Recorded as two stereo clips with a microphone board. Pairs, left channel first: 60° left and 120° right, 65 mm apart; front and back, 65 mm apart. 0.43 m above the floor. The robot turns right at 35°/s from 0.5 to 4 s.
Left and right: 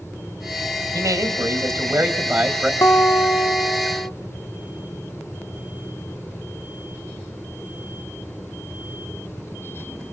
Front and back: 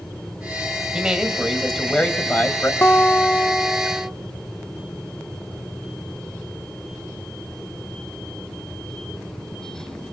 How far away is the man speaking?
About 2.5 m.